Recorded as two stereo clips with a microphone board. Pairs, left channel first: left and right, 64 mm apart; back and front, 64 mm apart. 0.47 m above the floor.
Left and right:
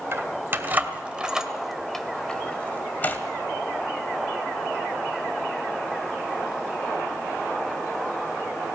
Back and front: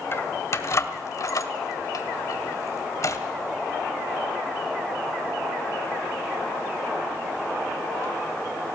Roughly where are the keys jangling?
Behind right.